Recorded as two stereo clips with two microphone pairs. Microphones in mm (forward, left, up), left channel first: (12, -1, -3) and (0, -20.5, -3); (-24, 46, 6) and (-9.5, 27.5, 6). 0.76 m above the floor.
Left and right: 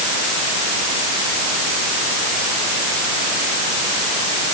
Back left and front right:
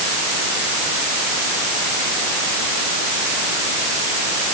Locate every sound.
Only background noise.